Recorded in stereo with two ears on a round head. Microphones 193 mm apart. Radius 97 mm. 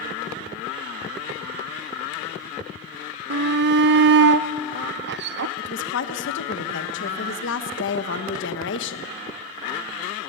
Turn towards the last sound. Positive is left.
turn(degrees=60)  # may be behind; listen again after turning